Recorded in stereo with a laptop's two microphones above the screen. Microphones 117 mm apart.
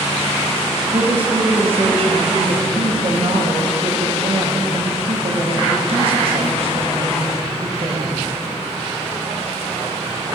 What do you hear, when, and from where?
0.9 s a woman speaking: 55° right (ahead or behind), 1.0 m